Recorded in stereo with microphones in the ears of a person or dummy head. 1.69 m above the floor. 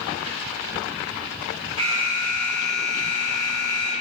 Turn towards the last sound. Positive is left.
turn(degrees=-25)  # may be behind; listen again after turning